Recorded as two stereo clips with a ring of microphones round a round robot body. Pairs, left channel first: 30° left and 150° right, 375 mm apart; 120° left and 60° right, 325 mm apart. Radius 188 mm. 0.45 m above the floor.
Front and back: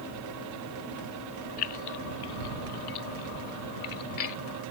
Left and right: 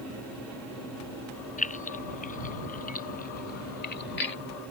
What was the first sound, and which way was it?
Keys jangling, 55° left.